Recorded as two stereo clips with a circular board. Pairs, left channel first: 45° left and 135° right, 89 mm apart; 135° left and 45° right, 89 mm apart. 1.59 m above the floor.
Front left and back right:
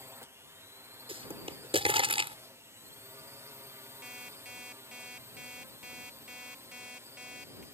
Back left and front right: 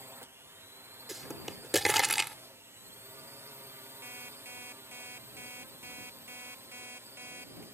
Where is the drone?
90° right.